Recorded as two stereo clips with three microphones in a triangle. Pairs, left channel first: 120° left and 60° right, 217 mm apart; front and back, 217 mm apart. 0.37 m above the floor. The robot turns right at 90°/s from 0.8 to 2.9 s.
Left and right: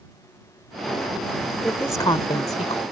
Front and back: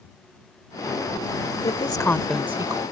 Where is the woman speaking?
30° left; by 2.8 s 135° left.